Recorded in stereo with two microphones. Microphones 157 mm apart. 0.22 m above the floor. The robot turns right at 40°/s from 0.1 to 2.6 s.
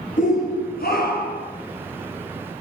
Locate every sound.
0.2 s a shout: 55° left, 5 m; by 1.5 s 105° left, 5 m